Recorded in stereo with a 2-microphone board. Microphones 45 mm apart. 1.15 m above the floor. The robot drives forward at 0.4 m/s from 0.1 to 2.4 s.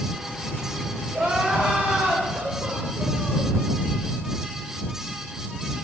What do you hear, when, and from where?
1.1 s crying: 30° right (ahead or behind), 4 m; by 3.5 s 25° right (ahead or behind), 4.5 m